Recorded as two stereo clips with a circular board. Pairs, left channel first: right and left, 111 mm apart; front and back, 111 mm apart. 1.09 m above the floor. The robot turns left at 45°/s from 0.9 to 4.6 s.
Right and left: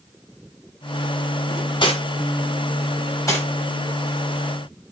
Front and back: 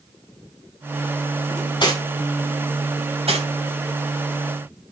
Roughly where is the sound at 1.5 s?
Ahead right.